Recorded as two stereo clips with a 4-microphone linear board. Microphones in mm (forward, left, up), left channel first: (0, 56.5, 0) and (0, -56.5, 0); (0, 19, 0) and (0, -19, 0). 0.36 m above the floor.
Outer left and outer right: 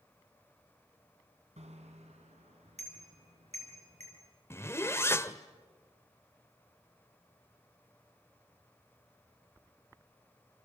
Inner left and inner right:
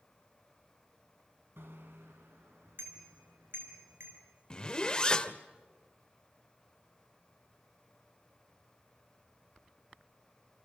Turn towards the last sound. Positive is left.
turn(degrees=25)  # may be behind; listen again after turning